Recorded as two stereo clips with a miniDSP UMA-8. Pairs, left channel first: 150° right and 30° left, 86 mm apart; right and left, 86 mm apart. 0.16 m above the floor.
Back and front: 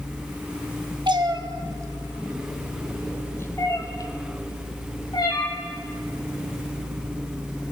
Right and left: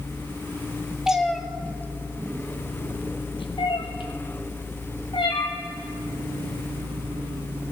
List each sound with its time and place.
1.1 s a cat meowing: 5° left, 1.1 m; by 5.5 s 115° right, 2.5 m